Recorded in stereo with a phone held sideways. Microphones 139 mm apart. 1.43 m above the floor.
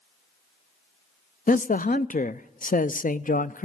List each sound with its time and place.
1.5 s a man speaking: 75° left (ahead or behind), 0.5 m